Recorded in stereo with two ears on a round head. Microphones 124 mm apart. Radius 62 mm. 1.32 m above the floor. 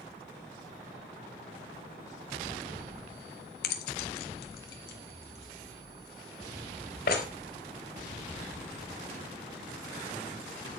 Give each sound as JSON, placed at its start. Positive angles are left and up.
{"t": 3.6, "sound": "keys jangling", "side_deg": 80, "distance_m": 1.6}